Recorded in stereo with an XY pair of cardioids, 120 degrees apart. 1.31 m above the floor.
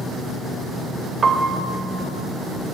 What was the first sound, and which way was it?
A piano, 35° right.